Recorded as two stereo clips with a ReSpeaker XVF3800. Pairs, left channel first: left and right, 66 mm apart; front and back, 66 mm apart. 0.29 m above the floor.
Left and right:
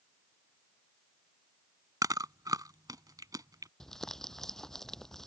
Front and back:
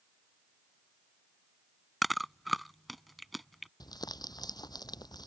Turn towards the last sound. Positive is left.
turn(degrees=5)